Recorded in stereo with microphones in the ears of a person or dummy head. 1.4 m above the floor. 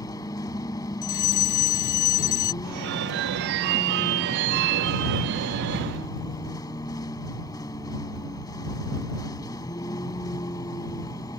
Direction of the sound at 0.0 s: 20° left (ahead or behind).